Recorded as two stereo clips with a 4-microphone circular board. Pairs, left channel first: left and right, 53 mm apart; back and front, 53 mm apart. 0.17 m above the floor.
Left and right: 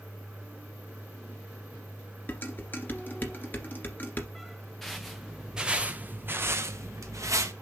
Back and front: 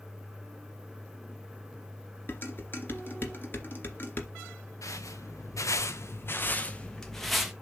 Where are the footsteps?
175° left, 1.2 m; by 7.5 s 85° right, 1.0 m.